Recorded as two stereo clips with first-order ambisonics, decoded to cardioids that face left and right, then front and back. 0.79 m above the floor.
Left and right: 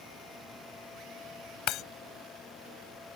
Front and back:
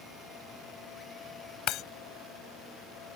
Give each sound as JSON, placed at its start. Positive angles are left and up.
{"t": 1.7, "sound": "breaking glass", "azimuth_deg": 45}